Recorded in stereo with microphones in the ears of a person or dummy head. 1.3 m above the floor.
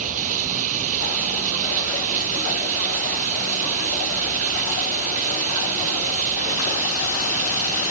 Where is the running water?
45° right (ahead or behind).